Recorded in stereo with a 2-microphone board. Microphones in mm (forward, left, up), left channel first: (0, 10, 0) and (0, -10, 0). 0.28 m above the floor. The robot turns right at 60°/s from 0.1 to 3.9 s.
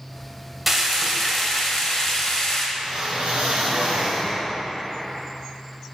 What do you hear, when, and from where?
0.7 s frying: 10° right (ahead or behind), 1.2 m; by 2.7 s 30° left (ahead or behind), 1.2 m
2.8 s a whoosh: 140° right, 1.7 m; by 4.4 s 70° right, 1.7 m